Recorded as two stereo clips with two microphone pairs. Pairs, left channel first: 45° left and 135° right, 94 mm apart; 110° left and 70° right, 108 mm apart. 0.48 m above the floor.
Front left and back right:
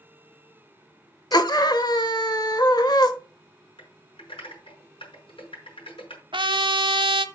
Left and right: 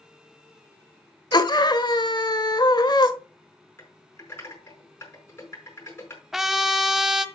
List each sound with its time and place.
1.3 s a scream: 75° left, 1.5 m
3.8 s typing on a keyboard: 45° left, 5 m
6.3 s a trumpet: 160° right, 0.9 m